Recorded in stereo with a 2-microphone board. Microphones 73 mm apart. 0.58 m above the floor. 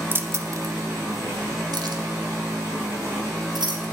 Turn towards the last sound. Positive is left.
turn(degrees=-80)